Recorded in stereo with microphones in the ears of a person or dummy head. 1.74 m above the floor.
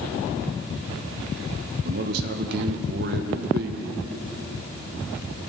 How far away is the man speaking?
About 1.4 m.